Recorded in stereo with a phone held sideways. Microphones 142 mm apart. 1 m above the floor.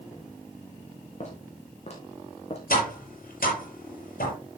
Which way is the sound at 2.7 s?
85° left.